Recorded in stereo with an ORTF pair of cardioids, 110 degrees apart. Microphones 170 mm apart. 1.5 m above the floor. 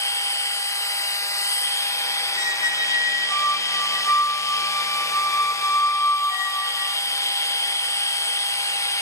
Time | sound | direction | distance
0.0 | a machine running | 15° left | 1.1 m
2.4 | a squeak | 30° left | 3 m